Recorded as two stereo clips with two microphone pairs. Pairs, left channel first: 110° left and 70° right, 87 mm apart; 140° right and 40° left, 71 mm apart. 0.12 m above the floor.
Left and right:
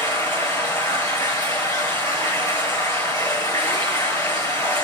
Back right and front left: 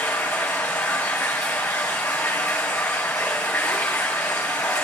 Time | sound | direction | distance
0.0 | running water | 160° left | 5 m